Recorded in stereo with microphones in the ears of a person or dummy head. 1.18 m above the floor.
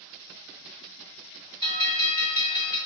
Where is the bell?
25° left (ahead or behind), 1.4 m.